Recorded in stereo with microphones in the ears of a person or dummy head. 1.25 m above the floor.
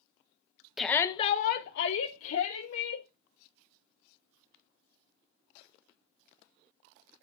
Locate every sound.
0.8 s a shout: 5° left (ahead or behind), 0.9 m; by 3.1 s 85° left, 2 m